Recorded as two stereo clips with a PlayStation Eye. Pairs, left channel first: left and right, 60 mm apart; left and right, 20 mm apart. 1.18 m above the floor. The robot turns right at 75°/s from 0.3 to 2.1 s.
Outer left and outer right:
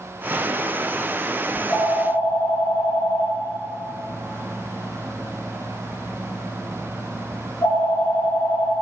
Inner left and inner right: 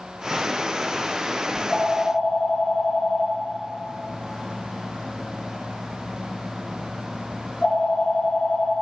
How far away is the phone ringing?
About 4.5 m.